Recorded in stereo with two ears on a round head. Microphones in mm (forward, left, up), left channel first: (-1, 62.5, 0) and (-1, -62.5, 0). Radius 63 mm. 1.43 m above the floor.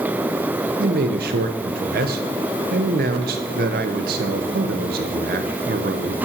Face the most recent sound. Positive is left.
turn(degrees=-70)  # may be behind; listen again after turning